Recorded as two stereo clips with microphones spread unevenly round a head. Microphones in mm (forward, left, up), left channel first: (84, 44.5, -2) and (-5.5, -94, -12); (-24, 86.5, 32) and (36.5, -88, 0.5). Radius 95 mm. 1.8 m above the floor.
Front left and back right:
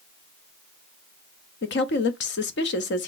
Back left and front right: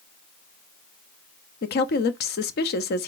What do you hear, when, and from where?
1.6 s a woman speaking: 75° left, 0.6 m